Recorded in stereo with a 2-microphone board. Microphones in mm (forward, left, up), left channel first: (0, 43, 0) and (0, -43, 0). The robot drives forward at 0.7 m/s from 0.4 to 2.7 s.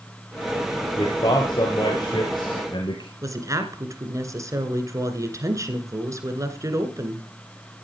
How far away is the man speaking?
About 3 m.